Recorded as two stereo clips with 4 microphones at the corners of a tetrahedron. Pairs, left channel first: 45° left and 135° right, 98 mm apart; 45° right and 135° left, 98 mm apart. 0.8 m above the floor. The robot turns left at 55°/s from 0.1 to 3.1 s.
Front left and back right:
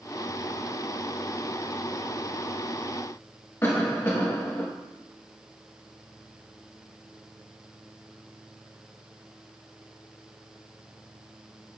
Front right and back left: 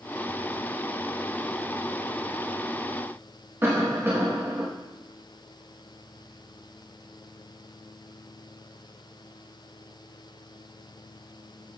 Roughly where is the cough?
Left.